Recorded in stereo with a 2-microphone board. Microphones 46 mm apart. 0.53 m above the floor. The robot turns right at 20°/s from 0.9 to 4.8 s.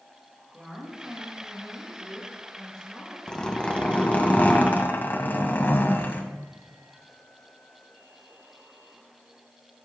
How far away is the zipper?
About 2.5 m.